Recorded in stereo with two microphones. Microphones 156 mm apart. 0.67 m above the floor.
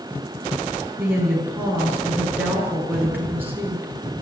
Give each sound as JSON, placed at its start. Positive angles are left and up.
{"t": 1.0, "sound": "a woman speaking", "side_deg": -10, "distance_m": 7.5}